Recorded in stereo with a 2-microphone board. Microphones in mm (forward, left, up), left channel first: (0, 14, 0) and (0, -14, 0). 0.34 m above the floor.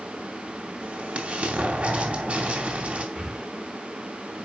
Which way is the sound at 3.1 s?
45° right (ahead or behind).